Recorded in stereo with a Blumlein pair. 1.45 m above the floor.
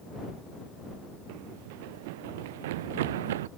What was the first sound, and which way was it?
Running footsteps, 45° right.